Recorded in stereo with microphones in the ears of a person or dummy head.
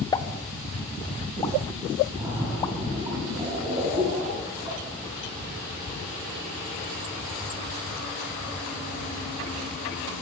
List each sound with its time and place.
0.1 s a pop: 20° left (ahead or behind), 0.6 m
2.1 s a splash: 35° right (ahead or behind), 5 m